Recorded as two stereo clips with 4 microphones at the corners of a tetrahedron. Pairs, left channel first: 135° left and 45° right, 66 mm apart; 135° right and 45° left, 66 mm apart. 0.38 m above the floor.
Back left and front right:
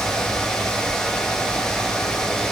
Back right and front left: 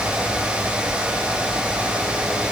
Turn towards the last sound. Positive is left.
No sound to turn to.